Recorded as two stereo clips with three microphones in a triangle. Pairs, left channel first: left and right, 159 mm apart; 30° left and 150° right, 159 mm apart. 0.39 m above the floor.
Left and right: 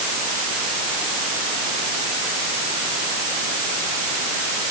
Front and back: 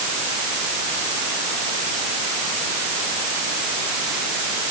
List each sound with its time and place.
Only background noise.